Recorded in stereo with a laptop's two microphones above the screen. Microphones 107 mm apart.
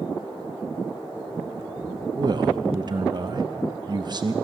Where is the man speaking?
45° right (ahead or behind), 0.6 m.